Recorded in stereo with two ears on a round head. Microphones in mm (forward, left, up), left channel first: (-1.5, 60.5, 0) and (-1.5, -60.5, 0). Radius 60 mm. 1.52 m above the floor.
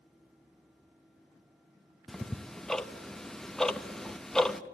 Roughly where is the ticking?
Centre.